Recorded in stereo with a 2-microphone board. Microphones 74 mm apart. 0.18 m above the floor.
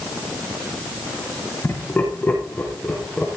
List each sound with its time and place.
1.6 s laughter: 25° left (ahead or behind), 6 m; by 3.3 s 10° left (ahead or behind), 5.5 m